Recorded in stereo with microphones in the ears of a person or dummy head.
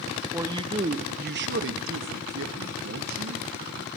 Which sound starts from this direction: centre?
A man speaking, at 0.3 s.